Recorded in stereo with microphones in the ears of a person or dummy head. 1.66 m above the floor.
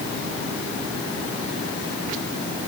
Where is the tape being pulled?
No tape being pulled in this recording.